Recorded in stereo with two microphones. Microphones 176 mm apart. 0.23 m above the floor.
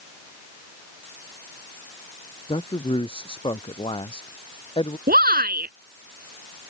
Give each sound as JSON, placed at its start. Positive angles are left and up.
{"t": 2.5, "sound": "a man speaking", "side_deg": 30}
{"t": 5.1, "sound": "a shout", "side_deg": -60}